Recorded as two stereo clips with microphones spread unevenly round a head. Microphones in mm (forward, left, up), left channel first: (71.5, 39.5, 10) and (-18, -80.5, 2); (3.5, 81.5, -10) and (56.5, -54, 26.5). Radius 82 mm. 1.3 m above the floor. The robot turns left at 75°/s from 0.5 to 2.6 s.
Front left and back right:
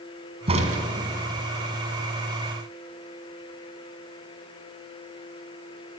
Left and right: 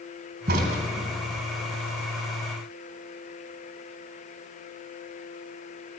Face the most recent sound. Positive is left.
turn(degrees=125)